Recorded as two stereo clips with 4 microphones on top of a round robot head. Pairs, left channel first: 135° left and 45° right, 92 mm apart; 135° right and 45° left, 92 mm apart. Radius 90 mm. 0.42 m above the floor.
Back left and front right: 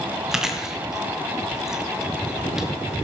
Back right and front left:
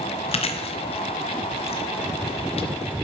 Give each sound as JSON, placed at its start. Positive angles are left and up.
{"t": 0.3, "sound": "chewing", "azimuth_deg": -130, "distance_m": 1.5}